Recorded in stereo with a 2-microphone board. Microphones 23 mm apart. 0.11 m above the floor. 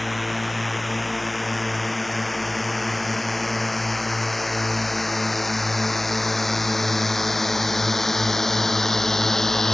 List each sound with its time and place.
0.0 s a drone: centre (ahead or behind); by 9.7 s 20° left (ahead or behind)